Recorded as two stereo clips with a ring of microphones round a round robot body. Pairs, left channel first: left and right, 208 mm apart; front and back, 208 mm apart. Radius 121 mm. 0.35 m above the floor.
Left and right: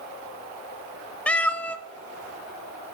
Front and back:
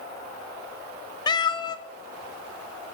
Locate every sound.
1.3 s a cat meowing: 15° left, 0.6 m